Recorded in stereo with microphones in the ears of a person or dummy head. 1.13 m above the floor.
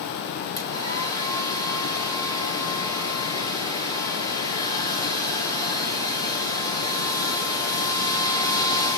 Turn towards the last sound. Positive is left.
turn(degrees=20)  # may be behind; listen again after turning